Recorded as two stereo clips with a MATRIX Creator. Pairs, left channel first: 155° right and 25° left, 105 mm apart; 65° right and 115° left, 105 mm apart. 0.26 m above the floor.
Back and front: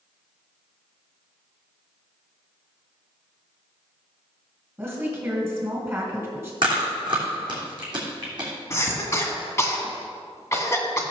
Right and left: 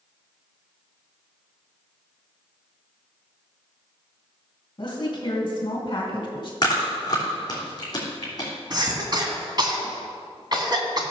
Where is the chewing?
20° right, 3.5 m.